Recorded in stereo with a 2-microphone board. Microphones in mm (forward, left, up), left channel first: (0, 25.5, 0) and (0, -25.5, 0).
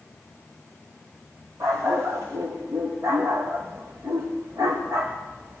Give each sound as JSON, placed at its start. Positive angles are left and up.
{"t": 1.6, "sound": "a dog barking", "side_deg": -80, "distance_m": 6.5}